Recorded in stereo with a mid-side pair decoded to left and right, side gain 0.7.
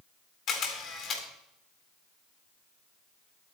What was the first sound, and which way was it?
A camera shutter, 40° left.